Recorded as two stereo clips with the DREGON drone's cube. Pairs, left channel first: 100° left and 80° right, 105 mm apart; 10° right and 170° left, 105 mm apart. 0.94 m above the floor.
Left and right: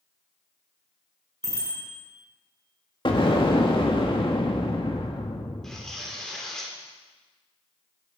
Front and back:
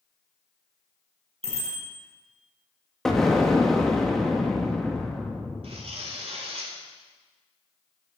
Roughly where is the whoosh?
I don't hear a whoosh.